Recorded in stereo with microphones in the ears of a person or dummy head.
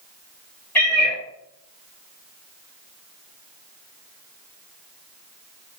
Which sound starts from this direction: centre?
A cat meowing, at 0.8 s.